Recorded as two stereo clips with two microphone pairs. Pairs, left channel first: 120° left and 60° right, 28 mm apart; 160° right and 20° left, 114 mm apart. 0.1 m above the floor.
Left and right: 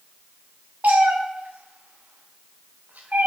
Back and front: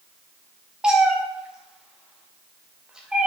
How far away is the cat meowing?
About 1.6 m.